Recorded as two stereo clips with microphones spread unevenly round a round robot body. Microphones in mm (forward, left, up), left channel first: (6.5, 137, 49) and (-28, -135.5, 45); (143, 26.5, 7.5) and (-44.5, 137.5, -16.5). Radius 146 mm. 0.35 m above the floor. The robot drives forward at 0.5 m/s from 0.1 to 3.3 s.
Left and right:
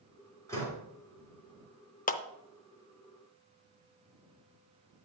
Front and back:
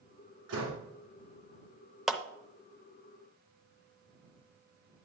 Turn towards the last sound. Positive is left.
turn(degrees=150)